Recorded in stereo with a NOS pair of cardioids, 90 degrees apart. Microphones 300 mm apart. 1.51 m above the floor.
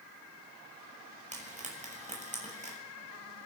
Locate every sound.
1.3 s frying: 25° right, 7.5 m